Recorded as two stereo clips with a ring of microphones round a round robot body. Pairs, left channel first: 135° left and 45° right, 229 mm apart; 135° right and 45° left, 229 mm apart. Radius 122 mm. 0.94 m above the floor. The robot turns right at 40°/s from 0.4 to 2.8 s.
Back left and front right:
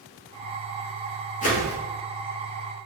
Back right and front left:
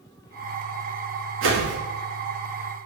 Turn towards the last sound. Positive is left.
turn(degrees=135)